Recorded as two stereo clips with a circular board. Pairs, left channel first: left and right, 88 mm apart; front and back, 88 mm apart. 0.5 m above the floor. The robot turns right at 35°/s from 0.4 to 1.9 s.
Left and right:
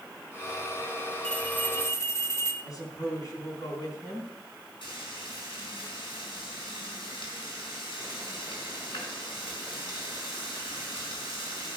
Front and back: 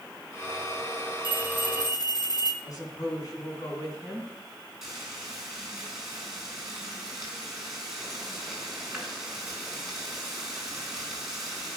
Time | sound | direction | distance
1.2 | a bell | 10° left | 1.4 m
2.6 | a woman speaking | 40° left | 4 m
4.8 | frying | 95° left | 4.5 m